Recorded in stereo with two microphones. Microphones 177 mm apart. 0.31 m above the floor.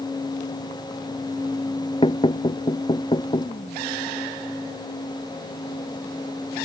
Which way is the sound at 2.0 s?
30° left (ahead or behind).